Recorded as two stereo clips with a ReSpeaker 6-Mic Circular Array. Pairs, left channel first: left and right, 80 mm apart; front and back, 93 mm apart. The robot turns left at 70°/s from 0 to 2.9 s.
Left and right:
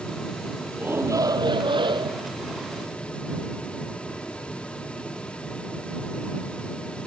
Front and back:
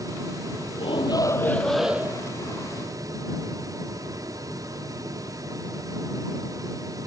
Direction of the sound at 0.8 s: 20° right.